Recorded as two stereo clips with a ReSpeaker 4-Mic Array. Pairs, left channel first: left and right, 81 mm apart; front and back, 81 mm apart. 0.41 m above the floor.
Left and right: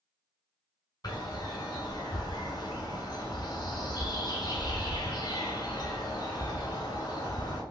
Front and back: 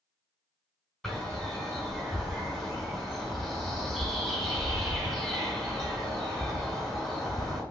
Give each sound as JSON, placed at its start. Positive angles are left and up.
{"t": 1.0, "sound": "a bird", "azimuth_deg": 85, "distance_m": 1.9}